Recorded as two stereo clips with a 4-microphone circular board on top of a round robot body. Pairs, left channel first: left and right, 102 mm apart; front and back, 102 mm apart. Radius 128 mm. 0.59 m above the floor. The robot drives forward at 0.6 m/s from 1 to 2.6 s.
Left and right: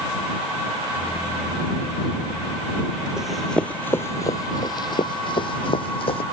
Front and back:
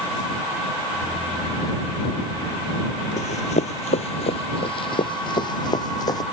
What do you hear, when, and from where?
3.2 s running footsteps: 5° right; by 6.2 s 55° left